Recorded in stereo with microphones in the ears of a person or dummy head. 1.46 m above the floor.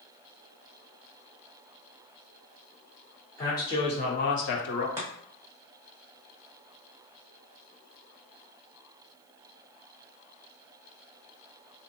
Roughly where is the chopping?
Centre.